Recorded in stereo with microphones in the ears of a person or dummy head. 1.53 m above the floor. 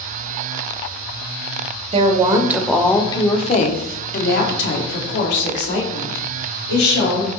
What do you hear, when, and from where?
1.9 s a woman speaking: 35° right (ahead or behind), 0.7 m; by 7.3 s 70° left (ahead or behind), 2.5 m